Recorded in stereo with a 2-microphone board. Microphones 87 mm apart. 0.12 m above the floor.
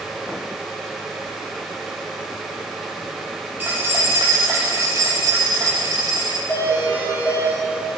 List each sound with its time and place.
3.6 s keys jangling: 20° right (ahead or behind), 3 m; by 6.4 s 45° right (ahead or behind), 3.5 m
6.5 s a doorbell: 35° left (ahead or behind), 5 m